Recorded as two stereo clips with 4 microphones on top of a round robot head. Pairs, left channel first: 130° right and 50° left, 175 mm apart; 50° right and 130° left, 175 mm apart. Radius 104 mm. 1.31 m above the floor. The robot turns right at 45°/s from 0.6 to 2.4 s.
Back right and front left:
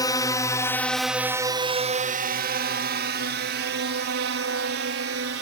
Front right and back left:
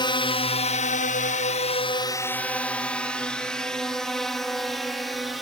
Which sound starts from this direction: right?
A drone, at 0.0 s.